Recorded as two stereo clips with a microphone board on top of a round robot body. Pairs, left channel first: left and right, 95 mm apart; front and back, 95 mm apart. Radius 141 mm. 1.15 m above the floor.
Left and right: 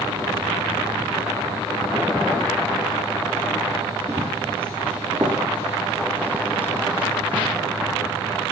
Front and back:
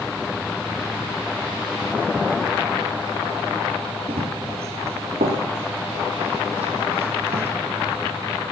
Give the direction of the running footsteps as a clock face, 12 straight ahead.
5 o'clock.